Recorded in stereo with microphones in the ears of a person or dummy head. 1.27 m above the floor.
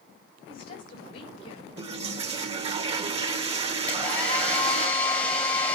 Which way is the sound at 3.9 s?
10° left (ahead or behind).